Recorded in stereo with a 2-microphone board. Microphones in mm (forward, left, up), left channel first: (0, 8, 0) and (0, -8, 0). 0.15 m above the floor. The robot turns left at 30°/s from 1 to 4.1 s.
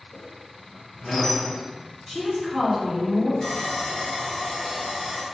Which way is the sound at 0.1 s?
15° left (ahead or behind).